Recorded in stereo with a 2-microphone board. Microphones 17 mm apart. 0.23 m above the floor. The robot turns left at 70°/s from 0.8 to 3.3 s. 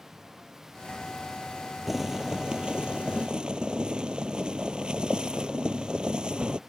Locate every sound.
1.9 s boiling: 10° right; by 6.6 s 110° right